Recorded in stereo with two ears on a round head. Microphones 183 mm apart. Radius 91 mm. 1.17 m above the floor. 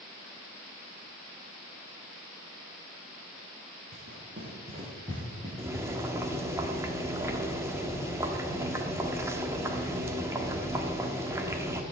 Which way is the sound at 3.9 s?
50° right (ahead or behind).